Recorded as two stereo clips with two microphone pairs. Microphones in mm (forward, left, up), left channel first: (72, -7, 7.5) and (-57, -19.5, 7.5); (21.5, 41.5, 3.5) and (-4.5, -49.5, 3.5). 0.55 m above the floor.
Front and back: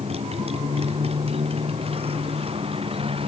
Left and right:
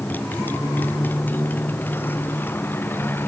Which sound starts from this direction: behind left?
A motorcycle, at 0.0 s.